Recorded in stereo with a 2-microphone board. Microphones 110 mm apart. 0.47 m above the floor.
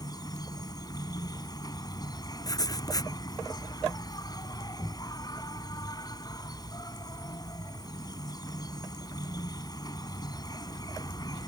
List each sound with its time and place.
0.0 s an insect: 35° left (ahead or behind)
2.4 s writing: 35° left (ahead or behind)